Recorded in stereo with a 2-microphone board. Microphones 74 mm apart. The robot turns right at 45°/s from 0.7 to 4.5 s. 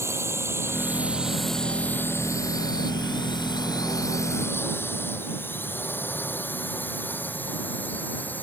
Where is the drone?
40° right (ahead or behind); by 8.4 s 25° left (ahead or behind).